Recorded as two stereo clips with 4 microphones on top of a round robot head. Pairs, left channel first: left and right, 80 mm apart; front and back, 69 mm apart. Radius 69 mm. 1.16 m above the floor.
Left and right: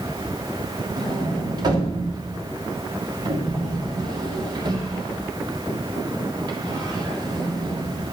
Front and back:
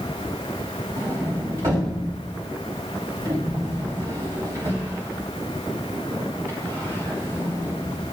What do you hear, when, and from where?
1.0 s a sliding door: 125° right, 3 m